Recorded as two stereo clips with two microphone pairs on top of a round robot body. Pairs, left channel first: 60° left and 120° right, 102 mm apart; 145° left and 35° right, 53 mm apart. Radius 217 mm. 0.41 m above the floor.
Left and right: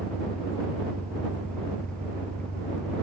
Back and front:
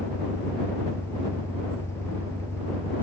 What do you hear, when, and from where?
0.0 s an engine running: 135° left